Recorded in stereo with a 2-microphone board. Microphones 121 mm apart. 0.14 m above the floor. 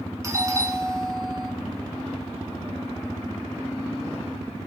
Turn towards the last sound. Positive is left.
turn(degrees=-25)  # may be behind; listen again after turning